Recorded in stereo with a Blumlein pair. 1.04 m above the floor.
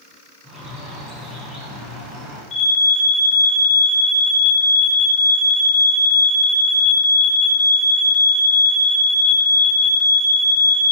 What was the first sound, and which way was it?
A bird, 10° right.